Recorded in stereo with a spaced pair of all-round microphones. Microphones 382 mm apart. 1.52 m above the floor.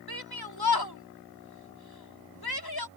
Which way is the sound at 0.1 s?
70° left (ahead or behind).